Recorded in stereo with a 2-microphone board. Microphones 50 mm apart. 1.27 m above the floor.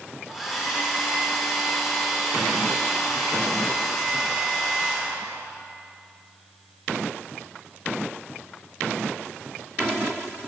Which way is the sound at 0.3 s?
Centre (ahead or behind).